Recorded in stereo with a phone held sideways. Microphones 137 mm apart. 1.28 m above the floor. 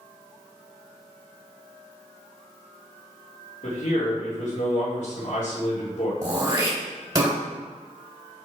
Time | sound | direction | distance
3.6 | a man speaking | 65° left (ahead or behind) | 3 m
6.2 | throat clearing | 30° right (ahead or behind) | 2.5 m